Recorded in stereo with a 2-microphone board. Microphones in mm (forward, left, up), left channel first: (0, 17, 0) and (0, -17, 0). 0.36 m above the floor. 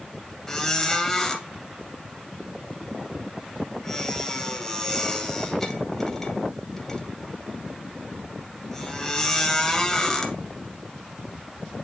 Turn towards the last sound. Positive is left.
turn(degrees=10)  # may be behind; listen again after turning